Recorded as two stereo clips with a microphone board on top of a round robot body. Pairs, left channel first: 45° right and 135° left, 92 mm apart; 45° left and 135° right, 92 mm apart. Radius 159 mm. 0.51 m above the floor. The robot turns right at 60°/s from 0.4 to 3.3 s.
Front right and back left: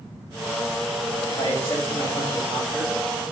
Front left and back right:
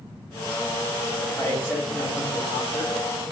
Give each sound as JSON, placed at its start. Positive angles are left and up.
{"t": 1.3, "sound": "a man speaking", "azimuth_deg": -35, "distance_m": 2.0}